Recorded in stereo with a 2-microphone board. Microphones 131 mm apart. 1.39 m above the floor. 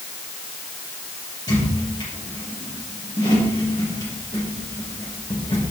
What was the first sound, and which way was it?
A squeak, 30° left (ahead or behind).